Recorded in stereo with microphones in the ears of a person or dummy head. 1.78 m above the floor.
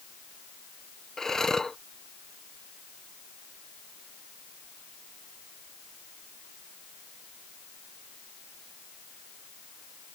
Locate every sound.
1.2 s breathing: 5° left (ahead or behind)